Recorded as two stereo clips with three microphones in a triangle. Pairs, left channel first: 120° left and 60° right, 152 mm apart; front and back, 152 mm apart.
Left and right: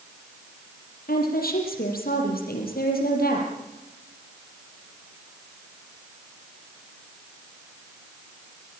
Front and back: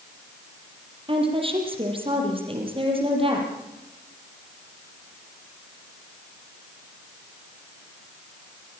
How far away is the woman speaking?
About 6.5 m.